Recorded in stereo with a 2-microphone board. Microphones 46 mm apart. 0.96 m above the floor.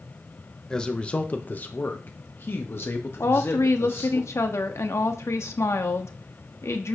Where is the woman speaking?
75° left (ahead or behind), 1.2 m.